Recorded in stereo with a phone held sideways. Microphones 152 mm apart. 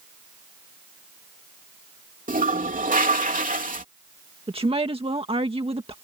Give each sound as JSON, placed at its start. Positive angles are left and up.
{"t": 2.3, "sound": "a toilet flushing", "side_deg": -65}
{"t": 4.5, "sound": "a woman speaking", "side_deg": -40}